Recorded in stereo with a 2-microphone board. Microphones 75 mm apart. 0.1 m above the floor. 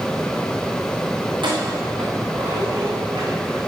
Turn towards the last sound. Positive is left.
turn(degrees=-75)  # may be behind; listen again after turning